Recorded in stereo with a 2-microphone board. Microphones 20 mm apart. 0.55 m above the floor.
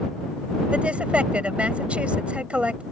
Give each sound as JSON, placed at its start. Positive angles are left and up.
{"t": 0.7, "sound": "a woman speaking", "side_deg": -70}